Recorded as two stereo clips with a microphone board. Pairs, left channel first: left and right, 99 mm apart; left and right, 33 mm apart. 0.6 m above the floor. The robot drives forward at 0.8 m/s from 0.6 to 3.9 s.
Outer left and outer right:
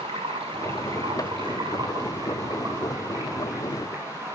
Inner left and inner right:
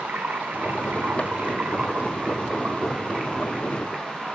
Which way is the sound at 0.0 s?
65° right (ahead or behind).